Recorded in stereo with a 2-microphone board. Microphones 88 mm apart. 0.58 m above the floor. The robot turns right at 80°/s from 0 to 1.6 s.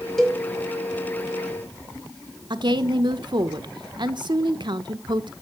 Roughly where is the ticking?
No ticking in this recording.